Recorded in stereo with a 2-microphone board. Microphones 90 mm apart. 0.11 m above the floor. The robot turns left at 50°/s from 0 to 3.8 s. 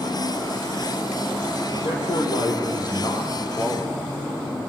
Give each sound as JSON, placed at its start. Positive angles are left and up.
{"t": 1.8, "sound": "a man speaking", "azimuth_deg": 105, "distance_m": 3.5}